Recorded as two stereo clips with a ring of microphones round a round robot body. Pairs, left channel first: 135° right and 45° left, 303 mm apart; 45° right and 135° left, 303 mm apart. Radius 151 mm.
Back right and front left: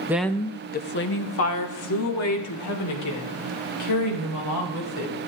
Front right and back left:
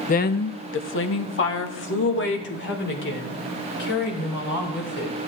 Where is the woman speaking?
25° right, 0.6 m; by 5.1 s 100° right, 4.5 m.